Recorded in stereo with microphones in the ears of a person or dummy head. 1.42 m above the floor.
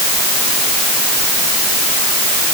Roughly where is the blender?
I don't hear a blender.